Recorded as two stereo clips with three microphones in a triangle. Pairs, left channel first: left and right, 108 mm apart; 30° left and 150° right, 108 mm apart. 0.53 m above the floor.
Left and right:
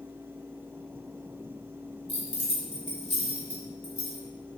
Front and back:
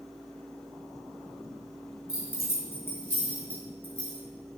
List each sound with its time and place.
2.1 s keys jangling: 95° left, 2 m; by 4.2 s 110° left, 3 m